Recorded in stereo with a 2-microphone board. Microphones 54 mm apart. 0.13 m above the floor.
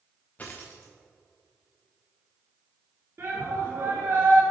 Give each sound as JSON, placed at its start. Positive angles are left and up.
{"t": 0.4, "sound": "a dropped coin", "side_deg": 30, "distance_m": 1.2}
{"t": 3.2, "sound": "a shout", "side_deg": -45, "distance_m": 1.4}